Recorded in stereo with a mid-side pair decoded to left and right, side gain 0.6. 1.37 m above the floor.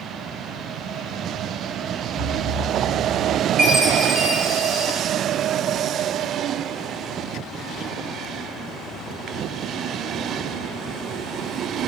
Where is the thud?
25° right, 3 m.